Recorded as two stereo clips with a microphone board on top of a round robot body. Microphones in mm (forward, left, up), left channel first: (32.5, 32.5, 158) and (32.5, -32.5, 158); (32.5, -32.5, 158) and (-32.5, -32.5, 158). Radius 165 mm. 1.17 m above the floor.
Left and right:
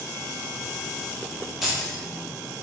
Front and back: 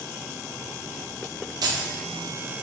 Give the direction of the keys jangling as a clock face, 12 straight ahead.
6 o'clock.